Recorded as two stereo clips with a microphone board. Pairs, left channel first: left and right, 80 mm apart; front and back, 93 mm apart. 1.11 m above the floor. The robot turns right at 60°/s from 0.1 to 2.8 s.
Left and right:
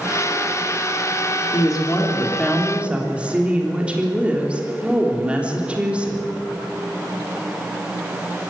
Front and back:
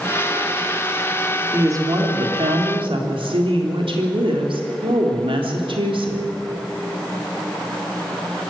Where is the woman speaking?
120° left, 3.5 m; by 6.3 s 165° right, 3.5 m.